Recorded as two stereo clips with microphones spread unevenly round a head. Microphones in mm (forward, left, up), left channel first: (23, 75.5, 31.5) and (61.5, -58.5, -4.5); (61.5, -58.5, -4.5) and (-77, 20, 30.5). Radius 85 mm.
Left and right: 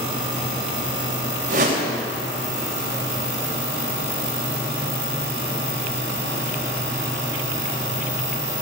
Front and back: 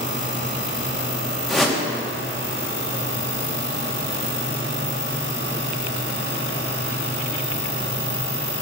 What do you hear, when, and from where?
1.5 s a whoosh: 120° right, 2 m